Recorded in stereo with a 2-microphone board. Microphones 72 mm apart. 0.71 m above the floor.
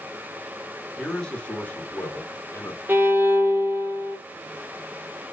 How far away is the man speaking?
About 1.5 m.